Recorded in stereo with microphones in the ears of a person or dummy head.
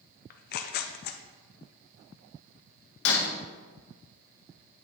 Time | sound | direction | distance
0.3 | tearing paper | 55° left (ahead or behind) | 0.5 m
3.0 | breaking glass | 60° left (ahead or behind) | 1.4 m